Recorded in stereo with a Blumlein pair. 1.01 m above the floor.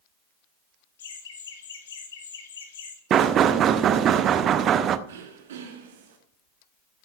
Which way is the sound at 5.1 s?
60° right.